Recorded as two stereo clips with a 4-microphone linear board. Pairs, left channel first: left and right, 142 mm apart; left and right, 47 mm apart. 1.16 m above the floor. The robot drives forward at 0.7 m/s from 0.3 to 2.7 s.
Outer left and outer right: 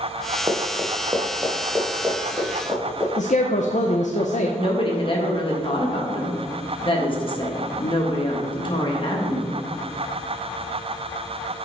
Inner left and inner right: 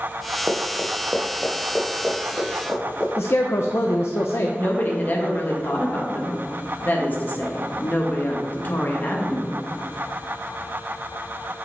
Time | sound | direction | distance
0.5 | running footsteps | 20° right (ahead or behind) | 1.2 m
3.2 | a man speaking | 60° left (ahead or behind) | 0.5 m
4.6 | a woman speaking | 40° left (ahead or behind) | 1.3 m